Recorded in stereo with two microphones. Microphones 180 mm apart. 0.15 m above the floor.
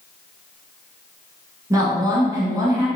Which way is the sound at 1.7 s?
20° right (ahead or behind).